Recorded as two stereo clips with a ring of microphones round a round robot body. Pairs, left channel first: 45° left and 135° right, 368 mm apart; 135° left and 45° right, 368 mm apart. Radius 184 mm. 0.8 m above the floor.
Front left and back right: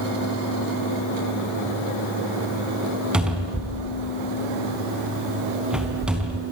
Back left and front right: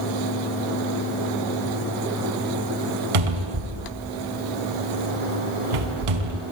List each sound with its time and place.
3.1 s a cupboard door: 45° right, 4 m